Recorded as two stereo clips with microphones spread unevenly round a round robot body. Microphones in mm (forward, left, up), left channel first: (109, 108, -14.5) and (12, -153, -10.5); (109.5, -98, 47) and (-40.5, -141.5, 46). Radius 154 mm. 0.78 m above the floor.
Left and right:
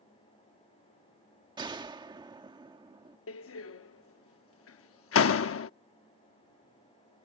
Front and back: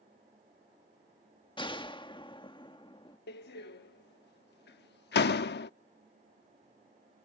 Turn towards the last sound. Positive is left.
turn(degrees=25)